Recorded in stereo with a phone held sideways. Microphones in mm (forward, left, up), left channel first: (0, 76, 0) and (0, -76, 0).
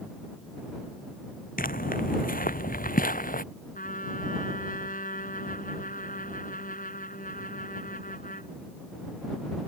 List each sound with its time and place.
1.6 s footsteps: 70° left (ahead or behind)
3.8 s a trumpet: 65° left (ahead or behind)